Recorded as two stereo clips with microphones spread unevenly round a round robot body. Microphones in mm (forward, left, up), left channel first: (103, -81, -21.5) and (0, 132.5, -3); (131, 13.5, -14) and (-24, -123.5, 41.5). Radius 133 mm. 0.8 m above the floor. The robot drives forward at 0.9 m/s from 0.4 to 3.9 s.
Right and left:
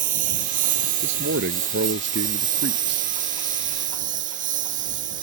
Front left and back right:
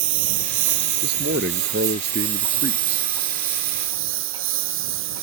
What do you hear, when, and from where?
0.0 s a lawn mower: straight behind
1.0 s a man speaking: 165° left; by 3.1 s 170° left